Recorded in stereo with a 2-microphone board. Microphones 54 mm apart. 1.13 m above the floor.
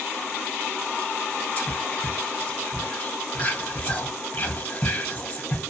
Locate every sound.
1.6 s whispering: 30° left (ahead or behind), 0.8 m